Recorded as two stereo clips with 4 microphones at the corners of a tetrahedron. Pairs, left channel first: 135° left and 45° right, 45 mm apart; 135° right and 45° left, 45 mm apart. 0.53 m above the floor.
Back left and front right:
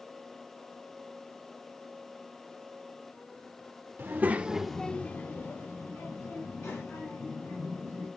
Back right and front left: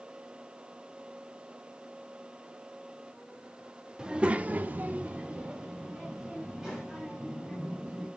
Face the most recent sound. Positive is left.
turn(degrees=130)